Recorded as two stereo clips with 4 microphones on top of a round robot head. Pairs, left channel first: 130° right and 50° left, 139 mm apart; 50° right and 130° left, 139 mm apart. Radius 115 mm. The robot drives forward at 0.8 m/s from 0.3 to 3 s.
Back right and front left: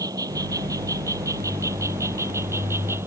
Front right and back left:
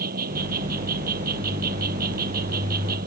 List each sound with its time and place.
0.0 s an insect: 115° left; by 3.1 s 125° left